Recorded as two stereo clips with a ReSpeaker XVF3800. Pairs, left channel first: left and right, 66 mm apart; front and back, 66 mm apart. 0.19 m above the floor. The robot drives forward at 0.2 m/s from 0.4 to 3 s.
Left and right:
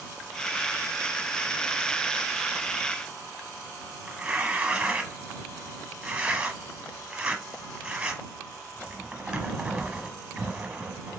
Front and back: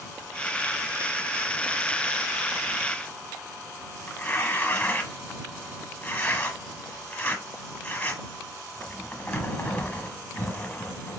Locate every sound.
4.1 s tearing paper: 35° right, 1.0 m